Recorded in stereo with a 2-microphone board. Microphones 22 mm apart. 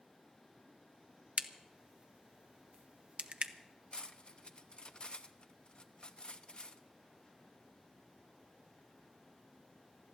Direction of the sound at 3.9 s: 45° left (ahead or behind).